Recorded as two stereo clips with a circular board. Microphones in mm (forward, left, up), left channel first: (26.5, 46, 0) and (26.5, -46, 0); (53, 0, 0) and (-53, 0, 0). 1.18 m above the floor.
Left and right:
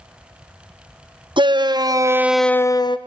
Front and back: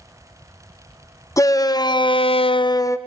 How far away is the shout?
About 1.2 m.